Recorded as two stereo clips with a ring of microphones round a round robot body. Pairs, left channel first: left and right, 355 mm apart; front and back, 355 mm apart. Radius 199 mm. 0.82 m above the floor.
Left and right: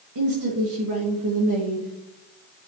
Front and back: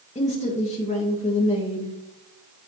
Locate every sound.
0.1 s a woman speaking: 65° right, 1.4 m